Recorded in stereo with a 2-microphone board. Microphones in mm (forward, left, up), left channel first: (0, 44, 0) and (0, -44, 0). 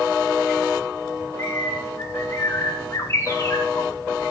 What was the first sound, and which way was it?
A bird, 35° left (ahead or behind).